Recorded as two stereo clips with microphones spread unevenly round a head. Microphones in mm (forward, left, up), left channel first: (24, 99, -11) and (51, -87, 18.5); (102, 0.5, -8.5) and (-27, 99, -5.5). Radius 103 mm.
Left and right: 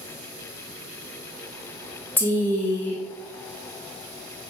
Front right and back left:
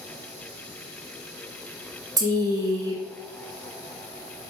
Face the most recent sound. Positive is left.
turn(degrees=120)